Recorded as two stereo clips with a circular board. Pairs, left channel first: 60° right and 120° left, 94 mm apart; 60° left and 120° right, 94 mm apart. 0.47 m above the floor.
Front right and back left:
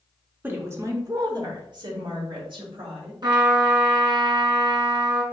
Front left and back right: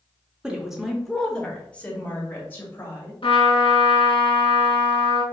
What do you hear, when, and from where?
0.4 s a woman speaking: 170° left, 0.9 m; by 3.1 s 125° left, 2.0 m
3.2 s a trumpet: 85° left, 1.3 m